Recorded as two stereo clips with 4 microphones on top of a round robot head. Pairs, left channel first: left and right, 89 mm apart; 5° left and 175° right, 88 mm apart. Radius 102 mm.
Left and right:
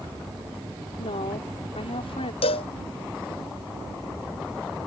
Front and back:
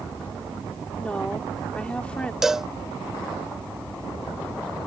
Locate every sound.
1.0 s a woman speaking: 85° left
2.4 s a cowbell: 100° left